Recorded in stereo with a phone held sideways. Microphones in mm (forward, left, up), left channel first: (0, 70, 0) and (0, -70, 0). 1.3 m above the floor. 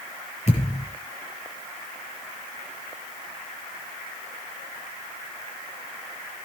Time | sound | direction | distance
0.5 | a thud | 50° left (ahead or behind) | 7 m